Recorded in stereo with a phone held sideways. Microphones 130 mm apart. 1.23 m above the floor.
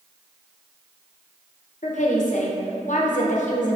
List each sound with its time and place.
1.8 s a woman speaking: 70° left (ahead or behind), 0.5 m